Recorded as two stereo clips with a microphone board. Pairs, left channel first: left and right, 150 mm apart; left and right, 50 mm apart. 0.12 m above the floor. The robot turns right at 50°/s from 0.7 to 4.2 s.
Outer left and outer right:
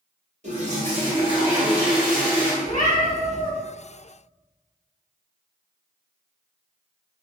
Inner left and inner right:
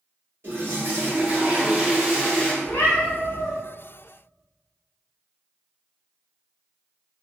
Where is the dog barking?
I don't hear a dog barking.